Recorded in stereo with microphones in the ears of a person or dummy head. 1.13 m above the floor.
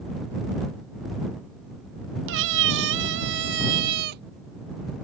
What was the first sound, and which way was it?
A cat meowing, 75° right (ahead or behind).